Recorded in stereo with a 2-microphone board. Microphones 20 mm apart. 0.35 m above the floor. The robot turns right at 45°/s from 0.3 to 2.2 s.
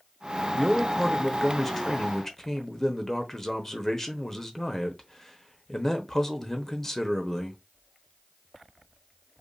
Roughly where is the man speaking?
Centre.